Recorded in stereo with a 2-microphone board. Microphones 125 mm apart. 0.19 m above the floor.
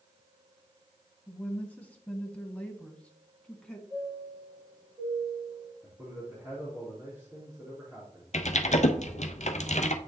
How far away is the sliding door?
No sliding door in this recording.